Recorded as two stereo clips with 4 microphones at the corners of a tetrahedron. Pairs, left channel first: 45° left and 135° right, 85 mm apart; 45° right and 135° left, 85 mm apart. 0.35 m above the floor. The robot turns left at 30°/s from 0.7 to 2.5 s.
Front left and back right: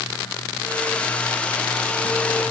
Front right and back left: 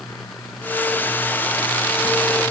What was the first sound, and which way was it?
Only background noise.